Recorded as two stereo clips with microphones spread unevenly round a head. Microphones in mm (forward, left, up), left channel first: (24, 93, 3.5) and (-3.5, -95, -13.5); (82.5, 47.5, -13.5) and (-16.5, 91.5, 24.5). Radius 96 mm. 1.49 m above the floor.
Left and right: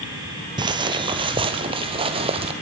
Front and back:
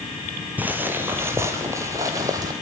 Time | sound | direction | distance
0.6 | footsteps | 160° right | 1.9 m